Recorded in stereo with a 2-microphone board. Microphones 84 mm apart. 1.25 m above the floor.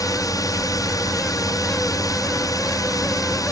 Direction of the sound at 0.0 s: 45° left (ahead or behind).